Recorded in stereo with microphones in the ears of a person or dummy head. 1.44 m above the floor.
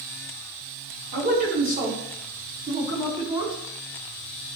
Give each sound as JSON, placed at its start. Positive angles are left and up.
{"t": 1.1, "sound": "a man speaking", "side_deg": -50, "distance_m": 4.0}